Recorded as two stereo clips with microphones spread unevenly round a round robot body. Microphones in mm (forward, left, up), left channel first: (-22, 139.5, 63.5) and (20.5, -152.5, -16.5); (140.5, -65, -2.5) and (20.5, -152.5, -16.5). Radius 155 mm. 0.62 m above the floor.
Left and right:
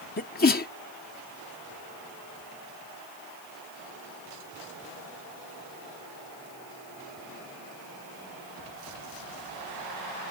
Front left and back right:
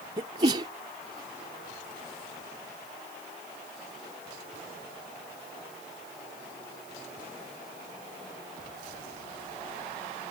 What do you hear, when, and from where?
0.2 s a sneeze: 165° left